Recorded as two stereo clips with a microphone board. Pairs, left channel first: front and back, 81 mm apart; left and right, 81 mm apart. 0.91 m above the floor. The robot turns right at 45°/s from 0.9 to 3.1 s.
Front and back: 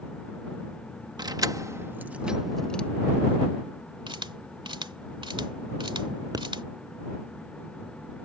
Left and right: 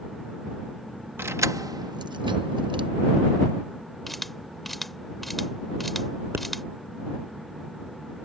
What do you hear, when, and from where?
1.2 s keys jangling: 150° right; by 2.9 s 75° right
4.1 s a camera shutter: straight behind
6.3 s a pop: 145° right